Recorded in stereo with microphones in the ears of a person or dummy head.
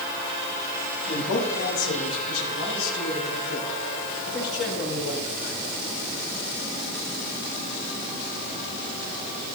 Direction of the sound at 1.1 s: 85° left.